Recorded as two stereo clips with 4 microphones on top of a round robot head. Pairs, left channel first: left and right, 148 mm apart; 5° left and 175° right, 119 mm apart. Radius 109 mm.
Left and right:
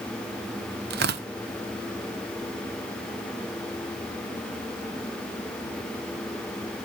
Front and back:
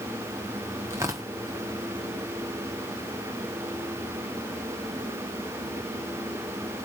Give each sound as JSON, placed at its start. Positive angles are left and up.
{"t": 0.9, "sound": "tearing paper", "azimuth_deg": -100, "distance_m": 0.6}